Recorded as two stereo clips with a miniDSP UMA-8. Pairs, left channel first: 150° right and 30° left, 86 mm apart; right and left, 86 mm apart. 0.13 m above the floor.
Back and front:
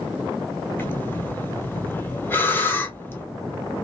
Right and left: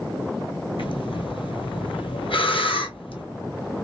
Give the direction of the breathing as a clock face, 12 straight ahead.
3 o'clock.